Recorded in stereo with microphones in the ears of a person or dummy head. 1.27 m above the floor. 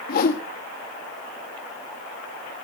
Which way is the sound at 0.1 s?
55° left (ahead or behind).